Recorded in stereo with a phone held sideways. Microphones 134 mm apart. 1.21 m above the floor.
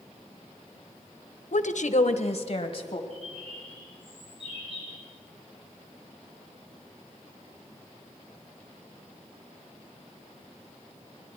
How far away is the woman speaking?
About 0.7 m.